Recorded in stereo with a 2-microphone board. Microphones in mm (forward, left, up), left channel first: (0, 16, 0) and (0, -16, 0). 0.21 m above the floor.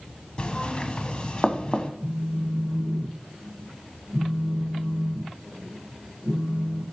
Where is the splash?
No splash in this recording.